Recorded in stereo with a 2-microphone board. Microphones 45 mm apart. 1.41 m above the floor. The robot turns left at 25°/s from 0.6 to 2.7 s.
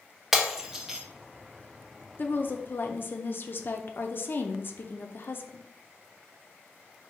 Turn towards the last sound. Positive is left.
turn(degrees=50)  # may be behind; listen again after turning